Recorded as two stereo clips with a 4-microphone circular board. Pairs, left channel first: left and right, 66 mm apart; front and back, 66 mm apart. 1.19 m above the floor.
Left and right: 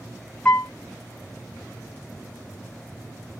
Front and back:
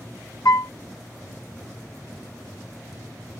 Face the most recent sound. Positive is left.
turn(degrees=20)